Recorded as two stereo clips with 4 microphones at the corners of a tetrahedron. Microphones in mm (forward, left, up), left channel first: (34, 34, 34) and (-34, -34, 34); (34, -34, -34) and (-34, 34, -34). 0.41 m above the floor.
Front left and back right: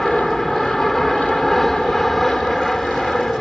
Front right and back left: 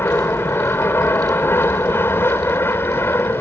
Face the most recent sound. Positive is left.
turn(degrees=-40)